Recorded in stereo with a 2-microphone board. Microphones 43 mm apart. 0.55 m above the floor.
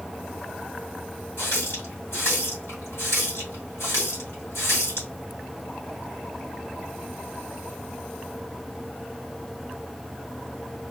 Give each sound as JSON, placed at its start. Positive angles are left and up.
{"t": 1.4, "sound": "a running tap", "side_deg": 70, "distance_m": 2.0}